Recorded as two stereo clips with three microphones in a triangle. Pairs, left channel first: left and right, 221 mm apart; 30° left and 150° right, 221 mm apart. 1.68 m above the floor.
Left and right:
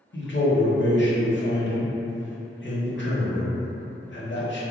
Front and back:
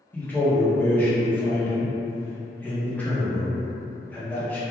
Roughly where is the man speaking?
Left.